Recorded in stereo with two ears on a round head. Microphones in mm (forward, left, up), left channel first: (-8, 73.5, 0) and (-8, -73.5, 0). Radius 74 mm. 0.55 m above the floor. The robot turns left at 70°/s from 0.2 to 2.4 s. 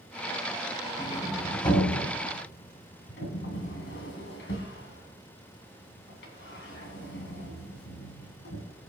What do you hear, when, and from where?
1.0 s a sliding door: 20° right (ahead or behind), 2.5 m; by 8.6 s 80° left, 2.5 m